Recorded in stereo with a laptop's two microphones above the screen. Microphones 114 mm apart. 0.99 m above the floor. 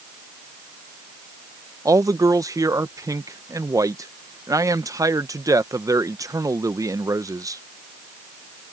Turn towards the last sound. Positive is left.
turn(degrees=-30)  # may be behind; listen again after turning